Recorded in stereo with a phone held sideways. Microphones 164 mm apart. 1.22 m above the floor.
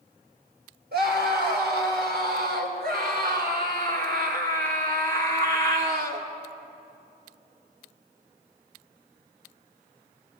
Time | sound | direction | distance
0.9 | a scream | 80° right | 6 m